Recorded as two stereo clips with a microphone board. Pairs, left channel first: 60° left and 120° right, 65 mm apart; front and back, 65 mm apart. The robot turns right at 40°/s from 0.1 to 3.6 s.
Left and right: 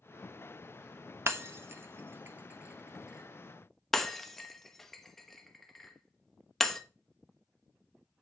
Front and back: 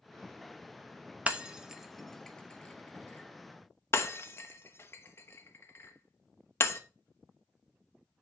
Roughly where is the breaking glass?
Behind right.